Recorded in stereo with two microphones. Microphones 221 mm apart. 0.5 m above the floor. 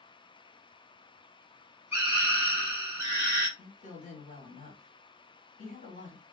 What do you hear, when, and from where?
1.9 s a scream: 10° right (ahead or behind), 1.3 m
3.6 s a woman speaking: 35° left (ahead or behind), 1.3 m